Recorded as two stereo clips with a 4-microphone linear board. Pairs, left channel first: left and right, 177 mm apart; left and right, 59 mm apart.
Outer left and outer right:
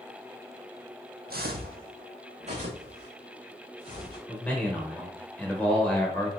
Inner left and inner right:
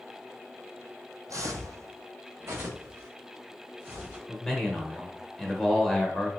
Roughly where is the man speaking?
Centre.